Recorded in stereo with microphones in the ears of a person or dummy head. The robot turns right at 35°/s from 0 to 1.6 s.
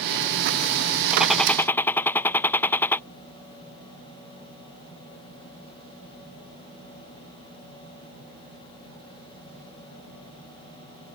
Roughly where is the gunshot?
Centre.